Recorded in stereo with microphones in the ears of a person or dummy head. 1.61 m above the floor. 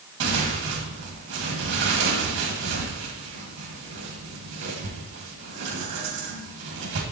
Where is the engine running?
I don't hear an engine running.